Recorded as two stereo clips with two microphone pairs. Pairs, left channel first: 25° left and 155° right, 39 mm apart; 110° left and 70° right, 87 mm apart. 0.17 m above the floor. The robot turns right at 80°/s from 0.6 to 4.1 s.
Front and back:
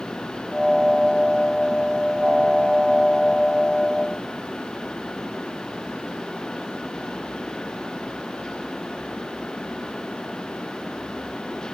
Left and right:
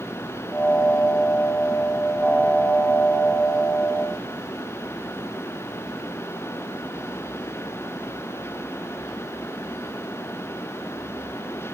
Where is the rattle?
I don't hear a rattle.